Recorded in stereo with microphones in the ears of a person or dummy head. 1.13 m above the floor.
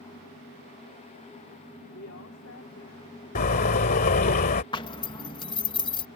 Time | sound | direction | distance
1.9 | a woman speaking | 65° left (ahead or behind) | ?
3.4 | a car horn | 45° left (ahead or behind) | ?
4.7 | a zipper | 20° left (ahead or behind) | ?